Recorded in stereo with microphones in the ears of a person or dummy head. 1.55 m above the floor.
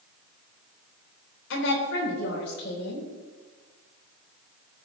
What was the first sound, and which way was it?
A woman speaking, 75° left (ahead or behind).